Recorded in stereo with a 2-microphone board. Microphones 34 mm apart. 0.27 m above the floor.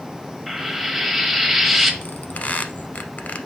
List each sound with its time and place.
0.5 s frying: 5° right (ahead or behind), 1.0 m
2.0 s a squeak: 50° left (ahead or behind), 0.6 m